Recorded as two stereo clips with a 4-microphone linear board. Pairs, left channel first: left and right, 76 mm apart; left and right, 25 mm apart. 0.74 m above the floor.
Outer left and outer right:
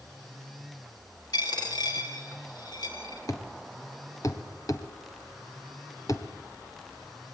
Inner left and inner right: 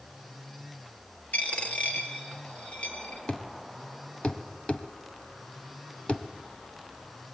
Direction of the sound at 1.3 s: 75° left (ahead or behind).